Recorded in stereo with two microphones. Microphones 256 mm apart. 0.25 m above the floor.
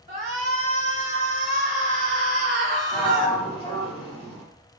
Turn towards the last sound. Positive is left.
turn(degrees=20)  # may be behind; listen again after turning